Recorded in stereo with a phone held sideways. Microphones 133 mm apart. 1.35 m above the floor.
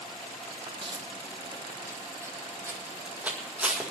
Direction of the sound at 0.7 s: 40° right (ahead or behind).